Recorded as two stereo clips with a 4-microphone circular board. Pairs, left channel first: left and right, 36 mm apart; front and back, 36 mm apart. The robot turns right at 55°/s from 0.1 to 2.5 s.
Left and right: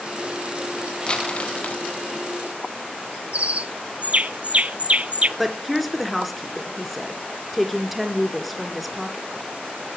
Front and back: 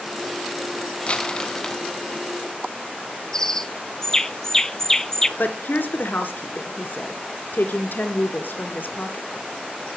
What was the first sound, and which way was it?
Crumpling, 40° left.